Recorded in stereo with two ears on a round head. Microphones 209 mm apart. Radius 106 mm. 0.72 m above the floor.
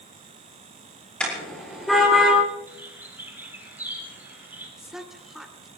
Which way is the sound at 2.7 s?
10° right (ahead or behind).